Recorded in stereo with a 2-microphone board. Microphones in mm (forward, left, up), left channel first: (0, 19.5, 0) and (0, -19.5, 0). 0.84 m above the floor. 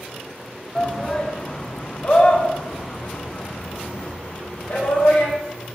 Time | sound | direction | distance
0.8 | a shout | 10° left (ahead or behind) | 1.2 m